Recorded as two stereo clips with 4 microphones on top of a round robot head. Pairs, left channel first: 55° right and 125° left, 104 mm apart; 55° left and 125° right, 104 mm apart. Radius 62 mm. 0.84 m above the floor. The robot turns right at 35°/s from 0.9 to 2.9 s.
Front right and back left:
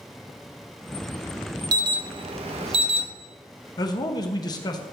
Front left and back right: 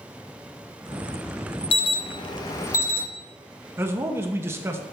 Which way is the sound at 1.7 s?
75° left.